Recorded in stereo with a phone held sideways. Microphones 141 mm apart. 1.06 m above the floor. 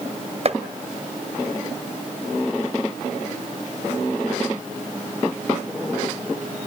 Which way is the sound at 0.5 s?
45° right (ahead or behind).